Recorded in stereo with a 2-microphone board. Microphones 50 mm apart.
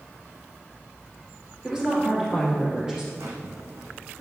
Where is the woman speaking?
15° right (ahead or behind), 3 m.